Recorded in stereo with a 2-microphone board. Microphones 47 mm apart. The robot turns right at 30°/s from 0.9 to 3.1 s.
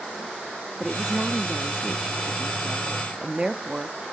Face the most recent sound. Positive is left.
turn(degrees=-20)  # may be behind; listen again after turning